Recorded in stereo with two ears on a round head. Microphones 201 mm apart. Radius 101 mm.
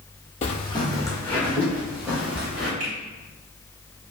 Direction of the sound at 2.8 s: 35° right (ahead or behind).